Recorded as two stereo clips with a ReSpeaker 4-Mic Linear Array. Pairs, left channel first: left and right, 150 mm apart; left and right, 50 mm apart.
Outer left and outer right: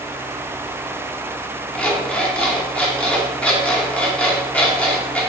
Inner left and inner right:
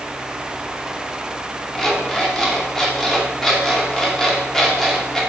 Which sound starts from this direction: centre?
An alarm clock, at 1.8 s.